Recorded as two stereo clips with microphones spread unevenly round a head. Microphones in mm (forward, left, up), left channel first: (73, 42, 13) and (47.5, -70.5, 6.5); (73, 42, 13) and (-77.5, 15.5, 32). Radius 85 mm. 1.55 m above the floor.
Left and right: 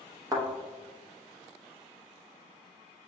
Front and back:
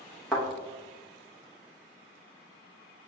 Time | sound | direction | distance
0.3 | a thud | 85° right | 0.8 m